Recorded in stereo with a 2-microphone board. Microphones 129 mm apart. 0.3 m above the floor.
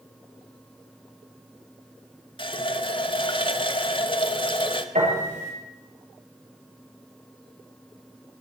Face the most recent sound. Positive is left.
turn(degrees=-60)  # may be behind; listen again after turning